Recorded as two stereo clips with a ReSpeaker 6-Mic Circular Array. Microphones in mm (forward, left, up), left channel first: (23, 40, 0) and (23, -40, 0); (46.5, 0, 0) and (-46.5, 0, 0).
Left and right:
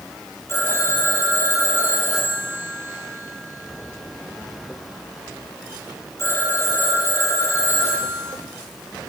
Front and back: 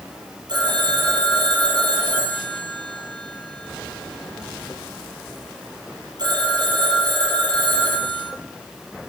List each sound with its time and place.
0.5 s a phone ringing: 145° left, 3 m